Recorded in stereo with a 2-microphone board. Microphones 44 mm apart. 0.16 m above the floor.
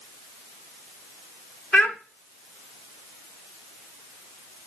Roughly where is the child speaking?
Left.